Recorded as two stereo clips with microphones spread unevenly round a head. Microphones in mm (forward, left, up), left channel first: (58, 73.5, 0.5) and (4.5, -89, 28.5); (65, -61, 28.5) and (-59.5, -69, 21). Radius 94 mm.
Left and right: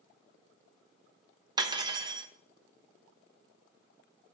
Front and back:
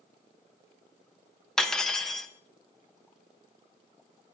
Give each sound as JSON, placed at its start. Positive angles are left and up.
{"t": 1.6, "sound": "cutlery clinking", "azimuth_deg": -75, "distance_m": 0.8}